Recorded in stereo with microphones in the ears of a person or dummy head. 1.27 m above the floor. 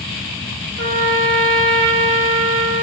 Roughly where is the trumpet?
Right.